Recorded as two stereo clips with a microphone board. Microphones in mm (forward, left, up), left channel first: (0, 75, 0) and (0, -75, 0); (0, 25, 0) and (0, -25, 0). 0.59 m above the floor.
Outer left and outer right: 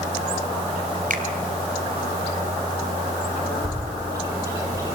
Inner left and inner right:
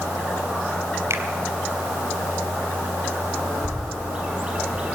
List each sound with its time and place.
1.1 s a finger snap: 65° right (ahead or behind), 2.5 m
3.6 s a bird: 20° right (ahead or behind), 6.5 m